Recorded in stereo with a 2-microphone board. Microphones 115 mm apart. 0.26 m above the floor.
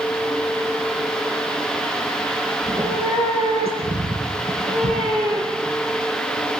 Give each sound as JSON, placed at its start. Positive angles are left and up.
{"t": 2.6, "sound": "a cat meowing", "side_deg": -65, "distance_m": 9.0}